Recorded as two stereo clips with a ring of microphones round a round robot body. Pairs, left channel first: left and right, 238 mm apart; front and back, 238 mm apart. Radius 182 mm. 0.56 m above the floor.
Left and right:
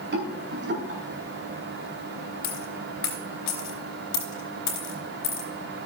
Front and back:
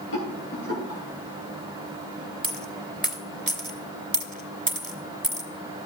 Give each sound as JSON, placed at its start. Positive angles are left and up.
{"t": 0.1, "sound": "a rattle", "azimuth_deg": -50, "distance_m": 3.5}
{"t": 2.4, "sound": "a dropped coin", "azimuth_deg": 125, "distance_m": 2.5}